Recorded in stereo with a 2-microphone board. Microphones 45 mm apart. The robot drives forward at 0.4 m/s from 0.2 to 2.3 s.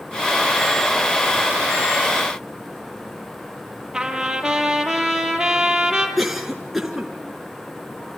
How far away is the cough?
About 2 m.